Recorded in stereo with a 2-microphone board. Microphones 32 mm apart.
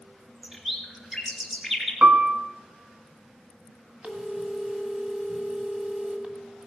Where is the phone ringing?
45° right (ahead or behind), 1.6 m.